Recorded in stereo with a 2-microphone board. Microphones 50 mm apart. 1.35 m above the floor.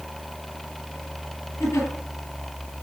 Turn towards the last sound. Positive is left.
turn(degrees=65)  # may be behind; listen again after turning